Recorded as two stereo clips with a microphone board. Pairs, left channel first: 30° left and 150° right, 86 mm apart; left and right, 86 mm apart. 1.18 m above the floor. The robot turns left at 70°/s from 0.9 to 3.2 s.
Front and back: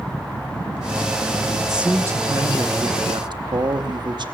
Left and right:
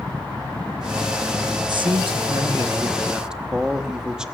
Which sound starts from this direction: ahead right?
A man speaking, at 1.7 s.